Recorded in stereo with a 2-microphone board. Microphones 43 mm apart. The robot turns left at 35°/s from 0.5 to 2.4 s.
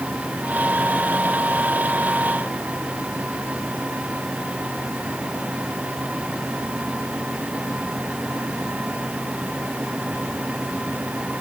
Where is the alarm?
No alarm in this recording.